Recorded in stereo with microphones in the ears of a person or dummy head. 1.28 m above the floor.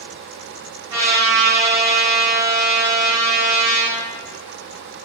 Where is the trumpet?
15° right (ahead or behind), 0.9 m.